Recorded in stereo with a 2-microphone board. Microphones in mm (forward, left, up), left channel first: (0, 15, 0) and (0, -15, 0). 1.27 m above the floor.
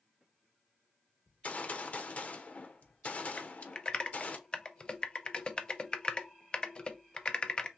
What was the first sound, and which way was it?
A gunshot, 50° left (ahead or behind).